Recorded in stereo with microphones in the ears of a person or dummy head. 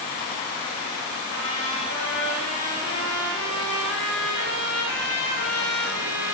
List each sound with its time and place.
1.3 s a trumpet: 75° left (ahead or behind), 3.5 m